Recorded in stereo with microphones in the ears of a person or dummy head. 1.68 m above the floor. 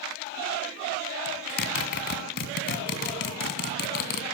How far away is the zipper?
About 2.5 m.